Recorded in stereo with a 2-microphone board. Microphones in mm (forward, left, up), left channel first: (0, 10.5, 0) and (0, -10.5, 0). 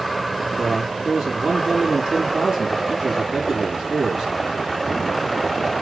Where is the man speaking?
20° right (ahead or behind), 2.5 m.